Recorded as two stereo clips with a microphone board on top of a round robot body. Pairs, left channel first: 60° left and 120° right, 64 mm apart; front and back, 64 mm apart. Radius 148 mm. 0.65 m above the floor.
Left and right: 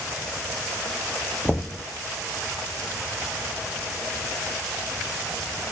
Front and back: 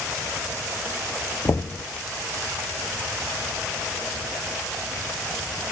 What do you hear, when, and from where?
1.4 s knocking: 15° right, 0.5 m